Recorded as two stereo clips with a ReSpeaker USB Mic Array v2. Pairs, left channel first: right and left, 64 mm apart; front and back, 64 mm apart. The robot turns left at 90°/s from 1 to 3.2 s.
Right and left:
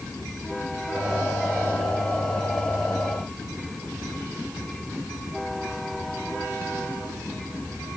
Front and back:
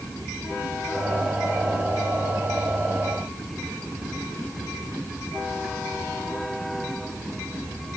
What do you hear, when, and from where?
Only background noise.